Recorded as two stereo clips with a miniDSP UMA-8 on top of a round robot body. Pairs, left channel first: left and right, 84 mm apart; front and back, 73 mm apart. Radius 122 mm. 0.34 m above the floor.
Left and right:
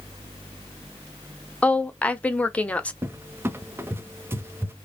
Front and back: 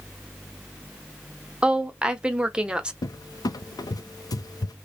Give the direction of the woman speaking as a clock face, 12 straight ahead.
8 o'clock.